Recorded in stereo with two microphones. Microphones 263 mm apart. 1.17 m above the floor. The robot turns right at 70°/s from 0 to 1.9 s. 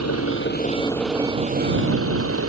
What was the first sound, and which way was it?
An engine running, 105° left.